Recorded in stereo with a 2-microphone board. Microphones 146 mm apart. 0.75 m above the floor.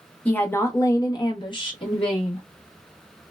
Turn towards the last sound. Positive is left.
turn(degrees=35)  # may be behind; listen again after turning